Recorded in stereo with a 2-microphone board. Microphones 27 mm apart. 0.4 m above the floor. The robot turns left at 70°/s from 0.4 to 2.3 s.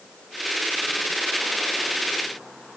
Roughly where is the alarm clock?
No alarm clock in this recording.